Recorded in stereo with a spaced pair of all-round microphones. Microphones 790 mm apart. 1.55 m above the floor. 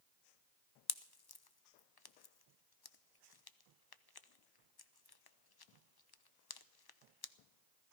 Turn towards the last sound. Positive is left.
turn(degrees=35)  # may be behind; listen again after turning